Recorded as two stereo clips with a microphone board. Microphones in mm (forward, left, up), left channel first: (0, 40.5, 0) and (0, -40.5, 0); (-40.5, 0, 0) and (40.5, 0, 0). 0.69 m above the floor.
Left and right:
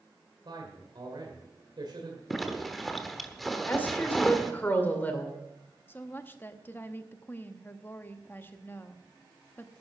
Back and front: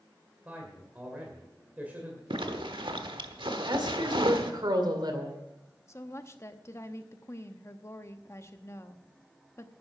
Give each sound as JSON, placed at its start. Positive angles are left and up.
{"t": 0.5, "sound": "a man speaking", "azimuth_deg": -70, "distance_m": 2.0}
{"t": 2.3, "sound": "a zipper", "azimuth_deg": 0, "distance_m": 1.1}
{"t": 3.7, "sound": "a woman speaking", "azimuth_deg": 25, "distance_m": 2.0}
{"t": 5.9, "sound": "a woman speaking", "azimuth_deg": 140, "distance_m": 0.8}